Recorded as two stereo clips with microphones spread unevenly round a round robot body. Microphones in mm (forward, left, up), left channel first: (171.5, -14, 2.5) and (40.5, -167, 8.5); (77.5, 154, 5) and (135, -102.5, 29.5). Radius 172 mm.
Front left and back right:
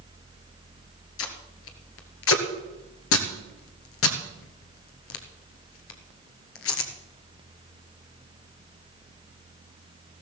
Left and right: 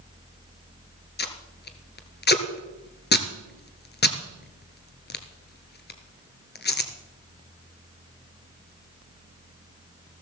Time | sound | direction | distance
1.2 | tape being pulled | 50° left | 1.4 m